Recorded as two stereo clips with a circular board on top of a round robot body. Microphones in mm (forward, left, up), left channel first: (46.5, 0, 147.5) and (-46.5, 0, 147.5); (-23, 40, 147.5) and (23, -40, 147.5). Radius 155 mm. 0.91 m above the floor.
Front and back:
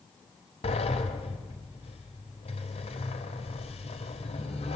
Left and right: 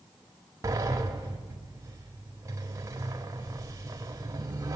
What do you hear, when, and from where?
0.6 s a sliding door: straight ahead, 1.3 m